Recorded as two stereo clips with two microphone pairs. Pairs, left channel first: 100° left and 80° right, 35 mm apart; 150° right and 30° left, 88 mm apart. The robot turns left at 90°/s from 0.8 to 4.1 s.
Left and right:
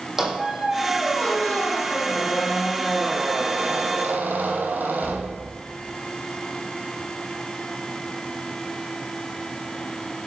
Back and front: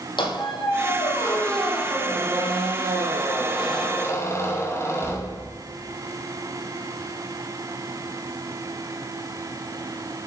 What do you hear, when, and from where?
0.2 s a squeak: 155° right, 2.5 m; by 5.6 s 95° right, 2.5 m